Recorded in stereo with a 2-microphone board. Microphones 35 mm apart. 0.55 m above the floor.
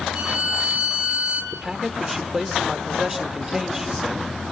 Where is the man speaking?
10° right (ahead or behind), 1.7 m.